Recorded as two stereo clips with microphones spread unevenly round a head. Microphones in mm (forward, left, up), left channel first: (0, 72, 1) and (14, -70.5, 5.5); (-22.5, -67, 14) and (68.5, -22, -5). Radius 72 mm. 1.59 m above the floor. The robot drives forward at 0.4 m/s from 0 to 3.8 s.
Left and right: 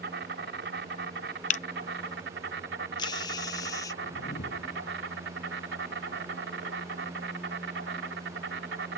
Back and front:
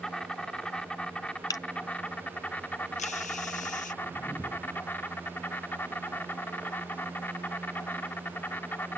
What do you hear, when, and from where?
0.0 s an insect: 70° right; by 9.0 s 85° right
1.5 s a camera shutter: 135° left; by 3.9 s 165° left
4.0 s a whoosh: 125° left